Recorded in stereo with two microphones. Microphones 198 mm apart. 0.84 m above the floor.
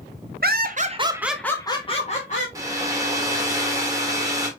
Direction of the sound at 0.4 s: 55° right (ahead or behind).